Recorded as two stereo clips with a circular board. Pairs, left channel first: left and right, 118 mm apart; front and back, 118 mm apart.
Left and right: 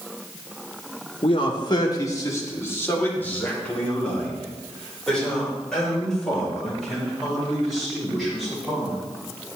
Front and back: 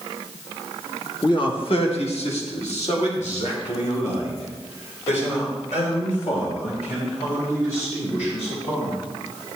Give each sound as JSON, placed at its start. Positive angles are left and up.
{"t": 1.2, "sound": "a man speaking", "azimuth_deg": 50, "distance_m": 1.2}